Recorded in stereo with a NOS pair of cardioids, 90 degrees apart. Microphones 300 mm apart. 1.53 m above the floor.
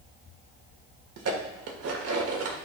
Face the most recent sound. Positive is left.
turn(degrees=-55)